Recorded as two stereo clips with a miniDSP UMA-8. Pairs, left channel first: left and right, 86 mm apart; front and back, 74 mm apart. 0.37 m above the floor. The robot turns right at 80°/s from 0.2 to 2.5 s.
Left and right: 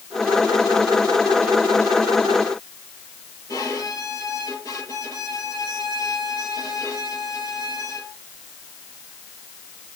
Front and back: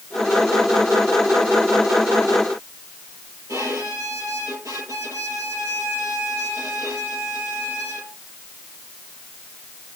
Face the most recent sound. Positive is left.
turn(degrees=135)